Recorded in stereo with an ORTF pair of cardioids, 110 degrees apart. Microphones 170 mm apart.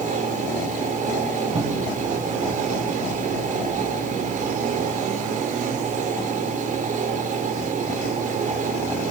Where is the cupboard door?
30° right, 6.5 m.